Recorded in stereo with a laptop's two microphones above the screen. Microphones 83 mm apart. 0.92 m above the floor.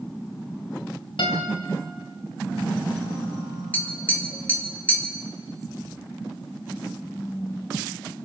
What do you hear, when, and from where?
1.2 s a guitar: 85° left, 3 m
3.7 s tapping: 20° left (ahead or behind), 2.5 m